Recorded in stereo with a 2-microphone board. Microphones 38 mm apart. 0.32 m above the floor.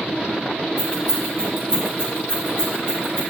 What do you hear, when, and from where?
0.8 s keys jangling: 50° right (ahead or behind), 3.5 m; by 3.2 s 65° right (ahead or behind), 5 m